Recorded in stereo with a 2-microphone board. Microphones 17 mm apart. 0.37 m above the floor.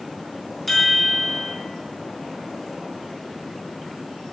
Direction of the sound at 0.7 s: 5° left (ahead or behind).